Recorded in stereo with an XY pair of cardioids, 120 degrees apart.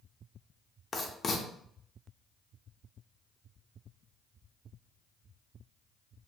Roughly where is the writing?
Ahead left.